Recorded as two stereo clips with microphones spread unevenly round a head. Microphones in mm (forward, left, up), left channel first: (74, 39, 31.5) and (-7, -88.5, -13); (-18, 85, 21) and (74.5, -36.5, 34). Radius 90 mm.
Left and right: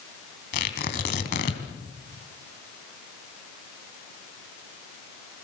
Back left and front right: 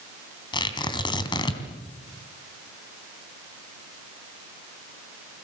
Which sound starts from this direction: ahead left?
Tearing paper, at 0.5 s.